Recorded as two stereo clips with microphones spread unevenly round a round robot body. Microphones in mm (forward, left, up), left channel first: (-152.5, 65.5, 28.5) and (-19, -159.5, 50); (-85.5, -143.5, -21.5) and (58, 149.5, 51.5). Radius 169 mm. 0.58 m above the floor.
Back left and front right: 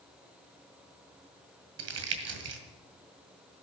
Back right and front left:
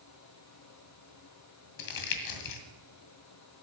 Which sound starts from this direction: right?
Crumpling, at 1.8 s.